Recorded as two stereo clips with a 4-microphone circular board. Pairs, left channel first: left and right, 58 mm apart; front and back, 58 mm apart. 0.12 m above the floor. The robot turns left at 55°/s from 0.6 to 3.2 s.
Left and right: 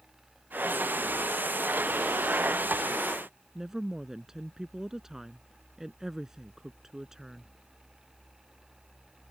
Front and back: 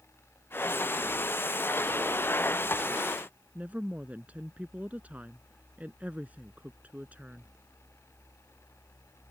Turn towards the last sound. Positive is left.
turn(degrees=-160)